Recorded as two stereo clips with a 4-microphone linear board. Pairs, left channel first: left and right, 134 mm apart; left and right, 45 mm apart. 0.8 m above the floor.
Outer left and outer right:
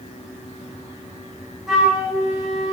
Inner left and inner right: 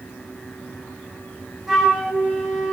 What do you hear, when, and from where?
1.7 s a flute: centre (ahead or behind), 7 m